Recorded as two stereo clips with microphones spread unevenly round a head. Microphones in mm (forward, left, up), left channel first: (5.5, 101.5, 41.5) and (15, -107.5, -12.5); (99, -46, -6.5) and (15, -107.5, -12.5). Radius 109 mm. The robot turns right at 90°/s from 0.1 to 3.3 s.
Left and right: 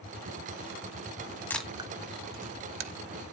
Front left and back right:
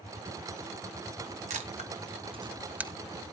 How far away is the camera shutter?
About 1.1 m.